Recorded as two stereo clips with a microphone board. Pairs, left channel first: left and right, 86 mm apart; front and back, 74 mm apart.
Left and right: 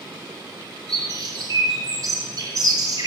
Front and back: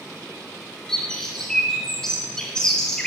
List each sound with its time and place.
0.9 s a bird: 75° right, 1.1 m